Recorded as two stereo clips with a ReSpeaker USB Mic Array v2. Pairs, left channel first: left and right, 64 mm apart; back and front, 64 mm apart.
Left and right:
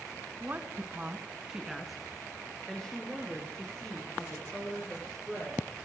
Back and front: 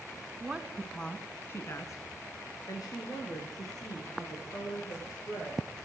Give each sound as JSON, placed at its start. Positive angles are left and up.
{"t": 0.4, "sound": "a woman speaking", "azimuth_deg": -55, "distance_m": 1.5}